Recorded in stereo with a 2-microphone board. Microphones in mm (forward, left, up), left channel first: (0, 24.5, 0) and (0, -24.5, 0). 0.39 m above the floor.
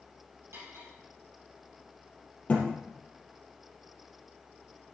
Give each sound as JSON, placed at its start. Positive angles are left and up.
{"t": 0.5, "sound": "cutlery clinking", "side_deg": -70, "distance_m": 6.0}
{"t": 2.5, "sound": "a thud", "side_deg": 30, "distance_m": 3.0}